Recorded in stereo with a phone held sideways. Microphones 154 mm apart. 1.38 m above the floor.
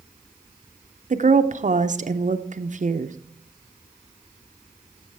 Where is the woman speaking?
55° right (ahead or behind), 0.6 m.